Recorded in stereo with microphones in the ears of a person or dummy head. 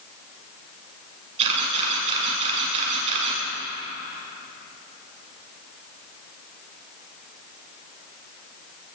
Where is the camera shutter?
35° right (ahead or behind), 8 m.